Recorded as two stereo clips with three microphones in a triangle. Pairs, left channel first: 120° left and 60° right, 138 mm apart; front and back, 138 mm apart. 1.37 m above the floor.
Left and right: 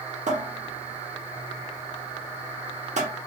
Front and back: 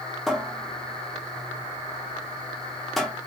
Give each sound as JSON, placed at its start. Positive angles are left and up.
{"t": 0.3, "sound": "a cupboard door", "azimuth_deg": -90, "distance_m": 0.7}